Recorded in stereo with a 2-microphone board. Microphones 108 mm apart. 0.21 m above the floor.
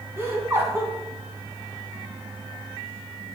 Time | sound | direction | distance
0.2 | laughter | 25° right (ahead or behind) | 1.9 m